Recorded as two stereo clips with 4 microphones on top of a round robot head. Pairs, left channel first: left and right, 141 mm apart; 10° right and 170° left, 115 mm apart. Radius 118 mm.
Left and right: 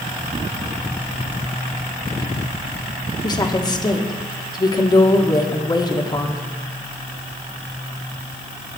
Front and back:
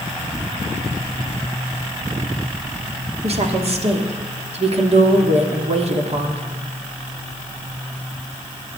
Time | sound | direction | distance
3.2 | a woman speaking | 150° left | 2 m